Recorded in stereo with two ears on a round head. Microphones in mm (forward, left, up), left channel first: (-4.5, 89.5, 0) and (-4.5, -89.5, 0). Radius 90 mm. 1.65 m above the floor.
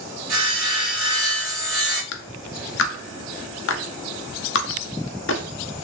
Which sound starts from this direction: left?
A clap, at 2.1 s.